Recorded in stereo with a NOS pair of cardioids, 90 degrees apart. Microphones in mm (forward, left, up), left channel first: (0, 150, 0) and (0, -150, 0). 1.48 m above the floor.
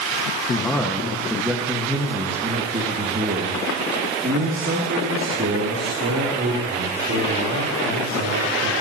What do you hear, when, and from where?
0.5 s a man speaking: 10° left, 1.6 m; by 8.7 s 60° right, 5 m